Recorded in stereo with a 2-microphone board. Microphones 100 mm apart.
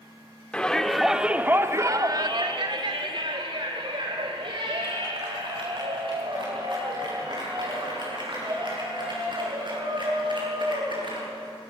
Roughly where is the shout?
Centre.